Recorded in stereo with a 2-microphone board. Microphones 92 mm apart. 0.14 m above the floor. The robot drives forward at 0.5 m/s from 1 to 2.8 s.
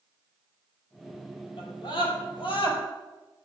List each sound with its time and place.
1.6 s a scream: 70° left (ahead or behind), 4 m; by 2.8 s 65° left (ahead or behind), 4 m